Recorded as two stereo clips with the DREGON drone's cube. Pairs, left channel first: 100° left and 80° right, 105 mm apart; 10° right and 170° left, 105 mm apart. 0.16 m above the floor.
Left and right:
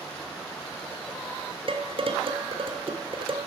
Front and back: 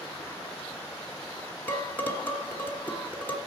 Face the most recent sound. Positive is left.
turn(degrees=-80)